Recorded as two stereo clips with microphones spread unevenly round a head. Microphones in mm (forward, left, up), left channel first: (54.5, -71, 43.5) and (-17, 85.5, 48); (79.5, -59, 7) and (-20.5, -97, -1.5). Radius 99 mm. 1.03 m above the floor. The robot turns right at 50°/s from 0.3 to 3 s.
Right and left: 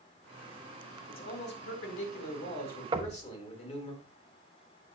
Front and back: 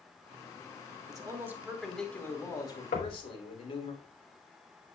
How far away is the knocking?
About 0.9 m.